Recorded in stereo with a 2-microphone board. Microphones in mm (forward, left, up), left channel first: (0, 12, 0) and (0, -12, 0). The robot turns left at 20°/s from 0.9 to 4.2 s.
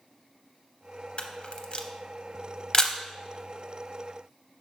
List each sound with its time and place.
1.2 s a camera shutter: 50° left (ahead or behind), 0.6 m; by 3.0 s 25° left (ahead or behind), 0.6 m